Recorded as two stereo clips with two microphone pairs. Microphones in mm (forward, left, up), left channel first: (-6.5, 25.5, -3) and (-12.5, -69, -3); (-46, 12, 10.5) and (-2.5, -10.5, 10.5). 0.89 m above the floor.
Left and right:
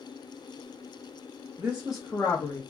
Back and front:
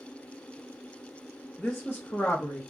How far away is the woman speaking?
About 0.9 m.